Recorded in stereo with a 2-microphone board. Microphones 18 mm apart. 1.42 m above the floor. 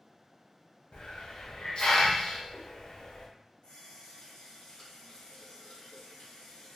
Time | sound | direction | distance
0.9 | a hiss | 50° left (ahead or behind) | 0.6 m
3.6 | a running tap | 60° left (ahead or behind) | 1.5 m